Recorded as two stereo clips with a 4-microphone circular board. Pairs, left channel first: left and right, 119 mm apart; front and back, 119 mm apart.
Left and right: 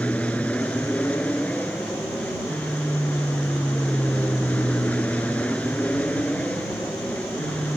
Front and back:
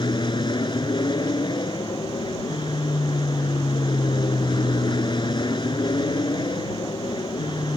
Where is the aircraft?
15° left.